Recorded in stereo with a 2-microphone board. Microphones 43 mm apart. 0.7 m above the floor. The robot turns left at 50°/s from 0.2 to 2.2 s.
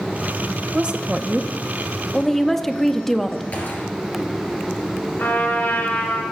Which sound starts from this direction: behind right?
A woman speaking, at 0.7 s.